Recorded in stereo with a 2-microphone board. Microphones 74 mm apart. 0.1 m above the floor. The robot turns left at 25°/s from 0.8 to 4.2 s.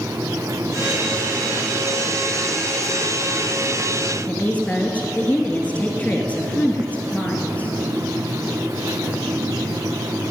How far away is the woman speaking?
About 1.6 m.